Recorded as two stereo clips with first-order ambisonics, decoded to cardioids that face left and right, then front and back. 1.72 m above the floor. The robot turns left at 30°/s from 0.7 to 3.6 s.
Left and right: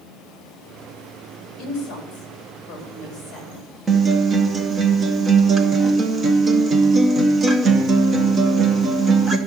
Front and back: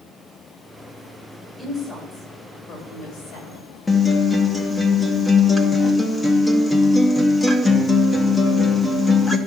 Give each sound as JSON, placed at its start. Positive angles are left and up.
{"t": 1.6, "sound": "a woman speaking", "azimuth_deg": 75, "distance_m": 4.0}
{"t": 3.9, "sound": "a guitar", "azimuth_deg": -65, "distance_m": 0.8}